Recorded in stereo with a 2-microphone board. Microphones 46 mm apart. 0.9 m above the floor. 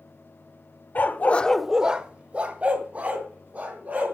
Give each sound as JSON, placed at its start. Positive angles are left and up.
{"t": 0.9, "sound": "a dog barking", "side_deg": 45, "distance_m": 0.8}